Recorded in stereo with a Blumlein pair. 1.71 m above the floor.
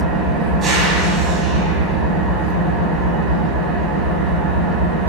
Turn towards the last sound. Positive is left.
turn(degrees=-20)